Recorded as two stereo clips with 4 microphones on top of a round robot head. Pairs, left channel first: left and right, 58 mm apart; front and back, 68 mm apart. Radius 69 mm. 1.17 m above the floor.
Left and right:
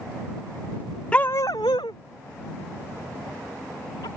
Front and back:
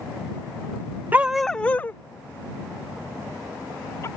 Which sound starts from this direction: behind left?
A dog barking, at 1.1 s.